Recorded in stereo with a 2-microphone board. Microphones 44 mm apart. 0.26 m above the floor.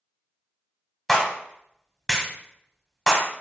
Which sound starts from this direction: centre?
A clap, at 1.1 s.